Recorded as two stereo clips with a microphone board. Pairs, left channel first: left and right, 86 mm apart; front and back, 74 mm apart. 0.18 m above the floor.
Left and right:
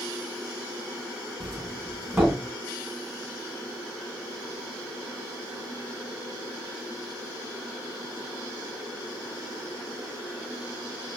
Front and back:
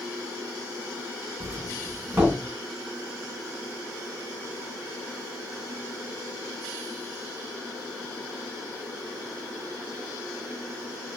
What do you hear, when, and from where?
1.4 s a doorbell: 160° right, 1.9 m